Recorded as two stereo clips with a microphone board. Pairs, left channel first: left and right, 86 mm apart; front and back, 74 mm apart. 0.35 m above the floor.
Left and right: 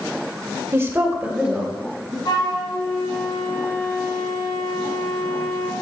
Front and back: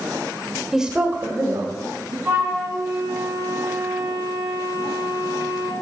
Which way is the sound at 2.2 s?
120° left.